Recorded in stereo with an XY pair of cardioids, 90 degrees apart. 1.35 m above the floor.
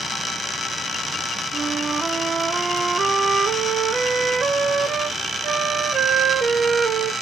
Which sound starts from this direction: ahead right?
A flute, at 1.5 s.